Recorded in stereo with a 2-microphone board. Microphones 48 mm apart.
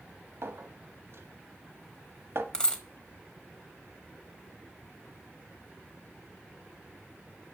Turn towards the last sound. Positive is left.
turn(degrees=20)  # may be behind; listen again after turning